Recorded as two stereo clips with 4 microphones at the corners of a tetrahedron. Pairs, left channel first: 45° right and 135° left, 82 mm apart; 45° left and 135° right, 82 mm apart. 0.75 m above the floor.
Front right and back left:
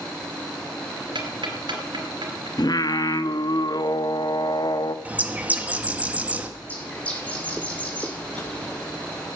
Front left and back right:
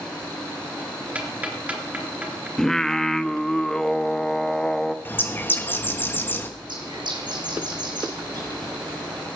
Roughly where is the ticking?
Behind left.